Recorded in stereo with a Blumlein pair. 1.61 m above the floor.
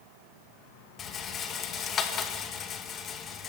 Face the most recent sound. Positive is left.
turn(degrees=25)